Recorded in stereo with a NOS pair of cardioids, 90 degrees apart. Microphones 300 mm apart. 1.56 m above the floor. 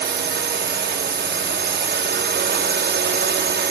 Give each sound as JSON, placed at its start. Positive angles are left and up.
{"t": 0.0, "sound": "a drone", "azimuth_deg": -35}